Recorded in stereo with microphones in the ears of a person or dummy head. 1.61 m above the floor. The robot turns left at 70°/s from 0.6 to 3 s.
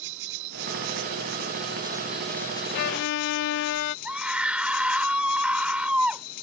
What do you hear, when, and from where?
0.0 s an insect: 75° right; by 6.4 s 120° left
2.7 s a violin: 60° left (ahead or behind); by 4.0 s 75° left (ahead or behind)
4.0 s a scream: centre (ahead or behind)